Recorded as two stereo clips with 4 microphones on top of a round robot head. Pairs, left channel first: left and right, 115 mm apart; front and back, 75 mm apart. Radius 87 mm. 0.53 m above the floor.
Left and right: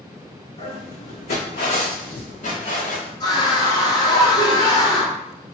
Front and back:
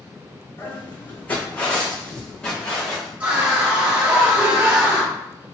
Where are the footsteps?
60° left, 1.5 m; by 3.1 s 85° left, 2.5 m.